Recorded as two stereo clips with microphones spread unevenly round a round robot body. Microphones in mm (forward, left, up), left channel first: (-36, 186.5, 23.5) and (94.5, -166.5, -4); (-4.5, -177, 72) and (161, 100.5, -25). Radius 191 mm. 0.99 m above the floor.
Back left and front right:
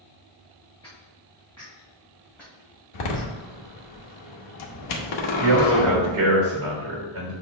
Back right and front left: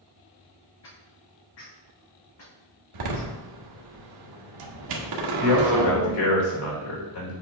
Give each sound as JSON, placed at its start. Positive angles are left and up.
{"t": 0.8, "sound": "footsteps", "azimuth_deg": -165, "distance_m": 3.5}
{"t": 2.9, "sound": "a door slam", "azimuth_deg": 80, "distance_m": 1.3}
{"t": 5.4, "sound": "a man speaking", "azimuth_deg": -125, "distance_m": 3.5}